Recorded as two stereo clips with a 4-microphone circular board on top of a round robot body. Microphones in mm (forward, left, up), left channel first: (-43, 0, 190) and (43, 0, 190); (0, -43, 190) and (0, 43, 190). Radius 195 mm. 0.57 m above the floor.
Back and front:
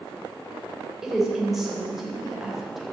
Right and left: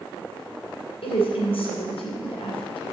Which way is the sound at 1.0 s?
85° right.